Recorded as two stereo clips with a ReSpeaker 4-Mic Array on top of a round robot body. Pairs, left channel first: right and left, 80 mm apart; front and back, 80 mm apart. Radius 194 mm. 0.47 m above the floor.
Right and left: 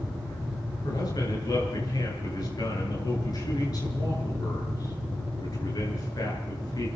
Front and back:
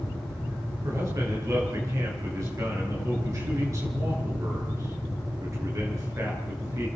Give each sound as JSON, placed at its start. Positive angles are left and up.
{"t": 0.8, "sound": "a man speaking", "azimuth_deg": -130, "distance_m": 8.5}